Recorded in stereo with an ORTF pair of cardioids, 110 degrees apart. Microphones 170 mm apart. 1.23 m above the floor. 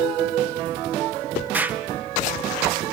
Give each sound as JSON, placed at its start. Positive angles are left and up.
{"t": 1.5, "sound": "an explosion", "azimuth_deg": -10, "distance_m": 0.6}